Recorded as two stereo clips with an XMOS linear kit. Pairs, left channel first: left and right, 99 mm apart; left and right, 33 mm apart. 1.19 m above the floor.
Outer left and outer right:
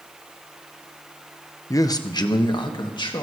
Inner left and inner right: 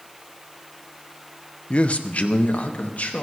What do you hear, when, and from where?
1.7 s a man speaking: 35° left (ahead or behind), 0.8 m; by 3.2 s 55° left (ahead or behind), 2.5 m